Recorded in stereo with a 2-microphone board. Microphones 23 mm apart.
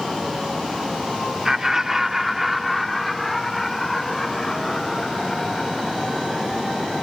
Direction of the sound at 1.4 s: 20° right (ahead or behind).